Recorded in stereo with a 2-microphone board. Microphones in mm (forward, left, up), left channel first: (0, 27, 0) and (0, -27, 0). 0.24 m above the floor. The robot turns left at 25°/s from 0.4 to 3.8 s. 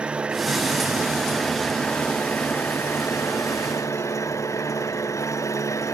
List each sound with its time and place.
0.0 s an engine running: 160° right; by 5.9 s 115° left